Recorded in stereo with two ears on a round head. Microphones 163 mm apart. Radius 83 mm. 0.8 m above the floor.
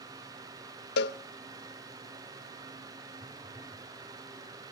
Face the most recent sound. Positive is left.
turn(degrees=-5)  # may be behind; listen again after turning